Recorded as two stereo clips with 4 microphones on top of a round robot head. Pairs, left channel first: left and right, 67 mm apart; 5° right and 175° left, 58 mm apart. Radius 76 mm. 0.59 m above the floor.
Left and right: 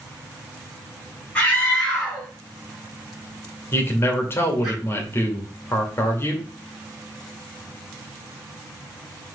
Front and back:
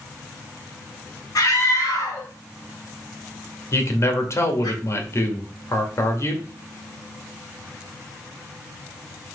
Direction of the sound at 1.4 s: 15° left.